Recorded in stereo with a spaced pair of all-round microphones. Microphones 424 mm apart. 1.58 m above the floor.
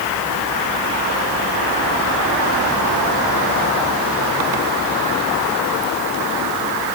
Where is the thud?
No thud in this recording.